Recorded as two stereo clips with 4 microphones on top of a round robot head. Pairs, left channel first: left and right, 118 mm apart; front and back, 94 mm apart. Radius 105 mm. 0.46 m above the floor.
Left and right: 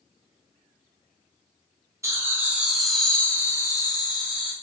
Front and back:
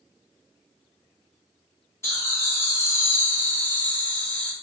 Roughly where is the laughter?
Ahead right.